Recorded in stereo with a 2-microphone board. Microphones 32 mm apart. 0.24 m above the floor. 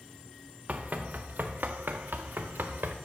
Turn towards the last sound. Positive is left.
turn(degrees=-80)